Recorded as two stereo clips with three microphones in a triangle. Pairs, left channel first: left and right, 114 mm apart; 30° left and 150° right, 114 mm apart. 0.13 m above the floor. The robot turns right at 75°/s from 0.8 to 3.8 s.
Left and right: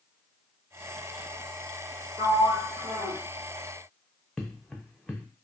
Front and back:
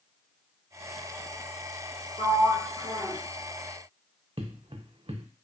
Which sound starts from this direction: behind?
Footsteps, at 4.4 s.